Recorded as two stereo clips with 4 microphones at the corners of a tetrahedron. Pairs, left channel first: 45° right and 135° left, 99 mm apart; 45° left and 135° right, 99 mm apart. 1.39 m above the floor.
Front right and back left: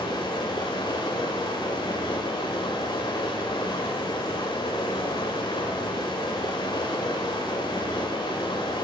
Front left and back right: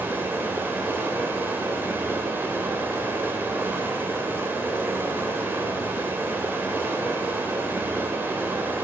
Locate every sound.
0.0 s running water: 70° right, 1.9 m